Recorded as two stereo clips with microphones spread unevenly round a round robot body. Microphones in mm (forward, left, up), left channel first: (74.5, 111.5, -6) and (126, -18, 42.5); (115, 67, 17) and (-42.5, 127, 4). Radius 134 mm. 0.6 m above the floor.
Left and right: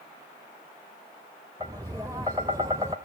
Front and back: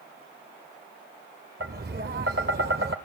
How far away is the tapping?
About 0.5 m.